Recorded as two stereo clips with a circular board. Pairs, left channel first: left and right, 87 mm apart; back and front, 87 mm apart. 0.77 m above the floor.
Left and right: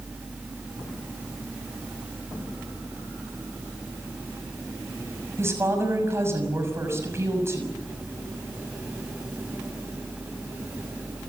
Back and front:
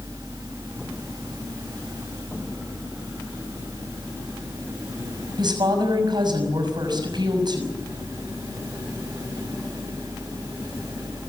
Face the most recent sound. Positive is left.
turn(degrees=-30)